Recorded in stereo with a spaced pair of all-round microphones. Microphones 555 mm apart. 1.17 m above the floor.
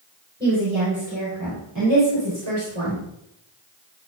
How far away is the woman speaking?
About 5 m.